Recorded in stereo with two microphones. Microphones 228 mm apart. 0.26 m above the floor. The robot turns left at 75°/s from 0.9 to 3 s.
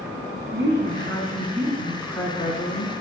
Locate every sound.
0.5 s a woman speaking: 95° right, 2.5 m; by 2.9 s 115° left, 2.5 m